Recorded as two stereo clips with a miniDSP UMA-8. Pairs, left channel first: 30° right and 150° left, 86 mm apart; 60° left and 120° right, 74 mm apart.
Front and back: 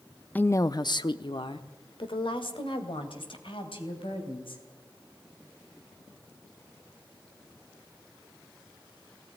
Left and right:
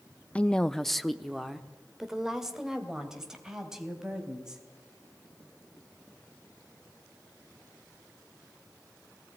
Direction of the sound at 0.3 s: 15° left.